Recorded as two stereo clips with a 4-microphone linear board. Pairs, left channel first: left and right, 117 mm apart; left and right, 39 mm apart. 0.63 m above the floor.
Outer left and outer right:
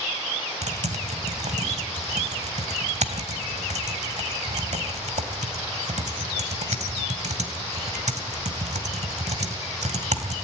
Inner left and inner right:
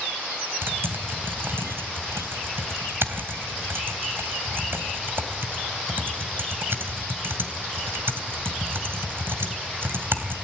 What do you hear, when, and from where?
0.6 s typing on a keyboard: 75° right (ahead or behind), 2.5 m